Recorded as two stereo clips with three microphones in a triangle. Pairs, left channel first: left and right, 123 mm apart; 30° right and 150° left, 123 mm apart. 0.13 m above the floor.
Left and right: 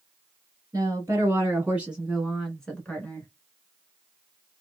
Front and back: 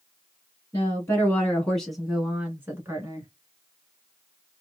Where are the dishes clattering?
No dishes clattering in this recording.